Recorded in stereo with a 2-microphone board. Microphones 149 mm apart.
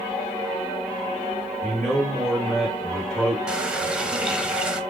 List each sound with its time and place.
1.6 s a man speaking: 5° left (ahead or behind), 3.5 m
3.5 s a running tap: 5° right (ahead or behind), 0.7 m